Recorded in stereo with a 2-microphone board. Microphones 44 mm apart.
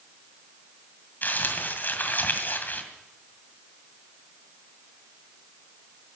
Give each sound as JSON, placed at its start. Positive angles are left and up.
{"t": 1.2, "sound": "crumpling", "side_deg": 45, "distance_m": 2.0}